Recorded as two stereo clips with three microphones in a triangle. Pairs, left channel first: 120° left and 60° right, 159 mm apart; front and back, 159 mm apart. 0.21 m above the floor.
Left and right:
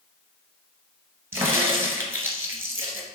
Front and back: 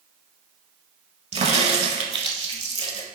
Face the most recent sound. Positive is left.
turn(degrees=-130)